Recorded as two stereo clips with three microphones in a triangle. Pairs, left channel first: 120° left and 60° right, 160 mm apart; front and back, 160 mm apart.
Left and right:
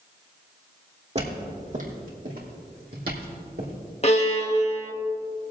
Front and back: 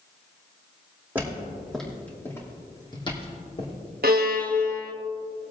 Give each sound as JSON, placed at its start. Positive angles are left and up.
{"t": 1.1, "sound": "footsteps", "azimuth_deg": -100, "distance_m": 3.0}
{"t": 4.0, "sound": "a violin", "azimuth_deg": 165, "distance_m": 1.1}